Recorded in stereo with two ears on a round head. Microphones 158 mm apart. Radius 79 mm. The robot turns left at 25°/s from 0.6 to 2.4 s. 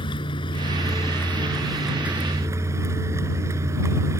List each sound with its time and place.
0.0 s a vehicle: 30° left; by 4.2 s 15° right